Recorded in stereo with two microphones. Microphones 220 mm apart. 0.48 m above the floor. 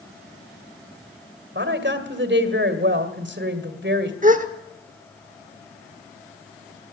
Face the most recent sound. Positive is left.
turn(degrees=-35)  # may be behind; listen again after turning